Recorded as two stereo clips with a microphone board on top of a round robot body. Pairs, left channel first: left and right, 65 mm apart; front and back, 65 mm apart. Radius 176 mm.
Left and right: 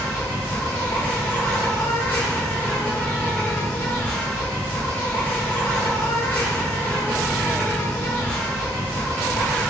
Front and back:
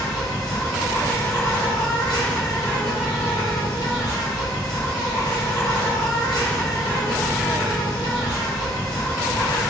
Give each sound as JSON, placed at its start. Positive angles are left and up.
{"t": 0.0, "sound": "an insect", "azimuth_deg": 30, "distance_m": 1.0}